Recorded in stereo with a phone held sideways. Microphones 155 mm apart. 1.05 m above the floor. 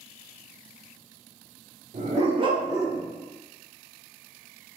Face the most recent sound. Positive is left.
turn(degrees=-10)  # may be behind; listen again after turning